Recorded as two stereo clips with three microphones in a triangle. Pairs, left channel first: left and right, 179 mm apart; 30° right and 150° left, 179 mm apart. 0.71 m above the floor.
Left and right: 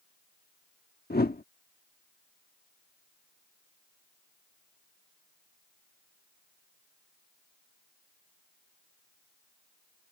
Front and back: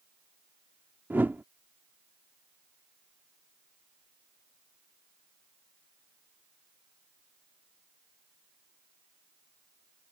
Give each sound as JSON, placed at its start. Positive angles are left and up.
{"t": 1.1, "sound": "a whoosh", "azimuth_deg": 70}